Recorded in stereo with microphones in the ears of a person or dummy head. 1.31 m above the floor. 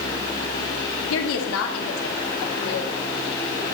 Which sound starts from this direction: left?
A woman speaking, at 1.1 s.